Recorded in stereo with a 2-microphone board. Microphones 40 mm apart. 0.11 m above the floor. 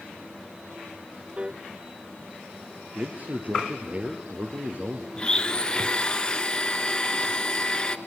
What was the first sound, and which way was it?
A piano, 25° right (ahead or behind).